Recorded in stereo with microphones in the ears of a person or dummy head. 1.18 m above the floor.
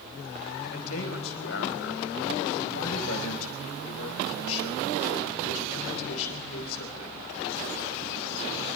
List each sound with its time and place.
0.6 s a man speaking: 85° left, 5 m